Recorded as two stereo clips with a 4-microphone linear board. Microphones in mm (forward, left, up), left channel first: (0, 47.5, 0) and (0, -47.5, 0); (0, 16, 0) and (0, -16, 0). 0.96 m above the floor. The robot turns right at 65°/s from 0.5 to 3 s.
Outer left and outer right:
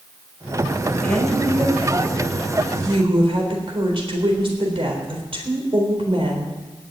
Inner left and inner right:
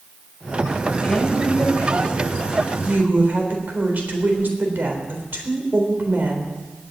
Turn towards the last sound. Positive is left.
turn(degrees=-70)